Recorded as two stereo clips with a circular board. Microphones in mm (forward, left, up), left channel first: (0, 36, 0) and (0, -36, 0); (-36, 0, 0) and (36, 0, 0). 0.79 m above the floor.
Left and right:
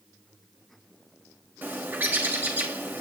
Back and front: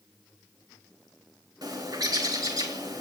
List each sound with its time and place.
1.6 s a bird: 25° right, 4 m